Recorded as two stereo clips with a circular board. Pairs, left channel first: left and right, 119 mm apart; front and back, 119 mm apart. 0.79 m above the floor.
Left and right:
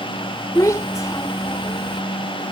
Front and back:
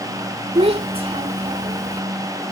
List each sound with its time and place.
0.6 s a child speaking: 155° left